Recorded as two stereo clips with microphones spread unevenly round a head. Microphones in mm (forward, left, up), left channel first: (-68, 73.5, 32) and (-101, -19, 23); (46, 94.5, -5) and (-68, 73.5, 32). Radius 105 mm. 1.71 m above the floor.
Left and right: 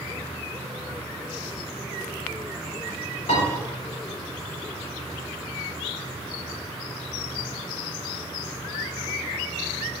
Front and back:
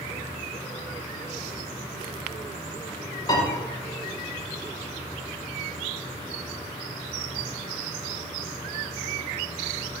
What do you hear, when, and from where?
3.3 s a piano: 70° left, 4 m